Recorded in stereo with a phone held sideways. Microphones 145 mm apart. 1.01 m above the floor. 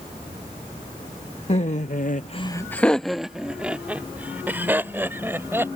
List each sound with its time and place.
1.5 s laughter: 45° left (ahead or behind); by 5.7 s 15° right (ahead or behind)